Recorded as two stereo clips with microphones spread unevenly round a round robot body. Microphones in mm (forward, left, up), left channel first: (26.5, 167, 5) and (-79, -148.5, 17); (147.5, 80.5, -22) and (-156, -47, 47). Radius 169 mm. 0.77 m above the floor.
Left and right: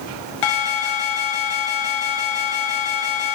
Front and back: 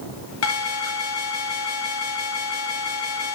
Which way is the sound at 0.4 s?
70° left.